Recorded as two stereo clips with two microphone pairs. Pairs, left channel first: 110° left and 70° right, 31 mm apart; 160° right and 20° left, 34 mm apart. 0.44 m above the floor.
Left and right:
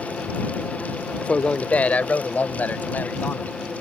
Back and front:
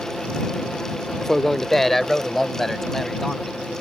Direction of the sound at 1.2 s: 130° left.